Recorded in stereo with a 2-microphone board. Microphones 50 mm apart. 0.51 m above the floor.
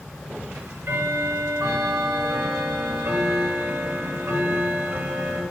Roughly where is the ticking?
Right.